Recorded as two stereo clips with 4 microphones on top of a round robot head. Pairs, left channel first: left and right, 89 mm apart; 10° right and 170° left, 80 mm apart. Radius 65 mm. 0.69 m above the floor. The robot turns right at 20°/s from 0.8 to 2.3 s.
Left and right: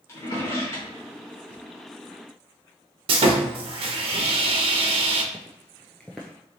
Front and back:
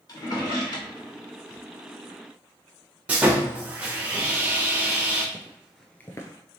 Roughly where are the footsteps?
Behind left.